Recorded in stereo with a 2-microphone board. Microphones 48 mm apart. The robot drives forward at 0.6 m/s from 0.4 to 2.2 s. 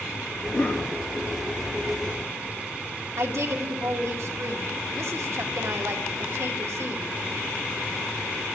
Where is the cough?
60° left (ahead or behind), 3 m; by 0.9 s 55° left (ahead or behind), 3.5 m.